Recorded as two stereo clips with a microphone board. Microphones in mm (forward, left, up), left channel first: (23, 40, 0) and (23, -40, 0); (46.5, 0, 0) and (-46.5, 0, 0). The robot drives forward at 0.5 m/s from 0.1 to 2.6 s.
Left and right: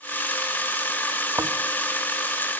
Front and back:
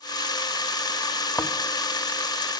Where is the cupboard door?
I don't hear a cupboard door.